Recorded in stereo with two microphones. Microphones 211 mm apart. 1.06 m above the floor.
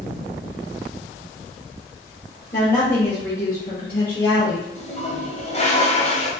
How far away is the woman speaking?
About 2 m.